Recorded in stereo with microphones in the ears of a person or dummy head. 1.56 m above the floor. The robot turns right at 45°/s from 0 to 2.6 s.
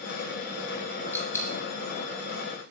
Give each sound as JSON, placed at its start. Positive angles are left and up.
{"t": 1.1, "sound": "a dropped coin", "side_deg": 10, "distance_m": 1.6}